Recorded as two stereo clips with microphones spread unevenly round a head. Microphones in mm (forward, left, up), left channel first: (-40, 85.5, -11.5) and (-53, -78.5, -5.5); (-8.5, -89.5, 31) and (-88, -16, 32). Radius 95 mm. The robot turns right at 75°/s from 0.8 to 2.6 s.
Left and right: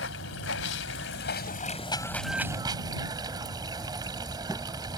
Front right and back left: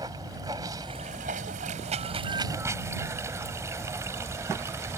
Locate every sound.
0.0 s running water: 65° left; by 5.0 s 160° right